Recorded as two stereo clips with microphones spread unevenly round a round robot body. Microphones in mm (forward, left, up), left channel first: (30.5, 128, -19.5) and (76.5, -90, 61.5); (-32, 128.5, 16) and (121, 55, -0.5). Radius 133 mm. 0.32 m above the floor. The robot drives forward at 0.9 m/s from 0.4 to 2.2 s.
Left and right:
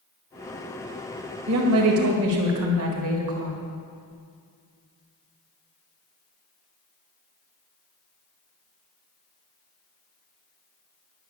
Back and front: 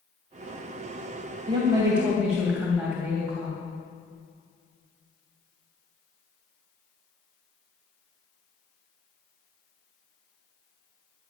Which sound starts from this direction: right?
A woman speaking, at 1.5 s.